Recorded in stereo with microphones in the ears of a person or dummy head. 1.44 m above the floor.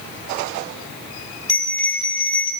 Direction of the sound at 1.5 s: 5° left (ahead or behind).